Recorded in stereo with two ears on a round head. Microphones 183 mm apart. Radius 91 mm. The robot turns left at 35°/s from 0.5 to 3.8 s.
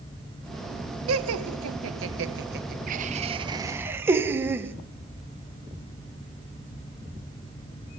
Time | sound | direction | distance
1.1 | laughter | 75° right (ahead or behind) | 1.8 m